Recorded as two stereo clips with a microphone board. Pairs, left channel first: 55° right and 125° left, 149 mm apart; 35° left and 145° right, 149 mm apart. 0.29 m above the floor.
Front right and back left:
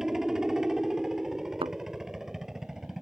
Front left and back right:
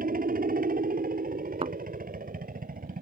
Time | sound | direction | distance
0.0 | a helicopter | 150° right | ?
1.6 | a thud | 170° left | ?